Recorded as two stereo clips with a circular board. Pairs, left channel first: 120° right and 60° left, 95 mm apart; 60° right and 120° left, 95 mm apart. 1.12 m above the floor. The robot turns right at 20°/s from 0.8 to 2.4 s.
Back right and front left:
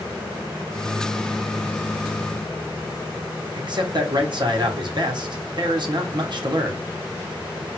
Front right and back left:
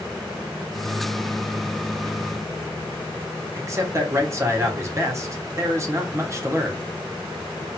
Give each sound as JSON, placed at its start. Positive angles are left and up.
{"t": 3.6, "sound": "a man speaking", "azimuth_deg": 70, "distance_m": 0.8}